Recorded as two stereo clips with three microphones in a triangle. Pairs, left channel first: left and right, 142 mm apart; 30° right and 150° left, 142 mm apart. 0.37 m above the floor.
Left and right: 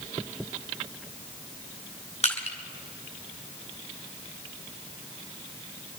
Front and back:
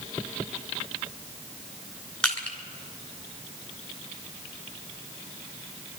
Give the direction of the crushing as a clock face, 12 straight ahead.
10 o'clock.